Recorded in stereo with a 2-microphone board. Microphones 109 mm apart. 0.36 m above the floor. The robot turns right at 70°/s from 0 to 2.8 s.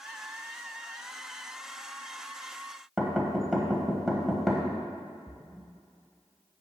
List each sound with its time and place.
3.0 s knocking: centre (ahead or behind), 1.4 m
5.3 s a splash: 20° left (ahead or behind), 0.8 m